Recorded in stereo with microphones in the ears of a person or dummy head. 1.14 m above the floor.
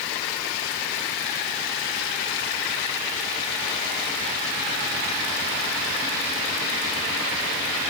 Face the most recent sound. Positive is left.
No sound to turn to.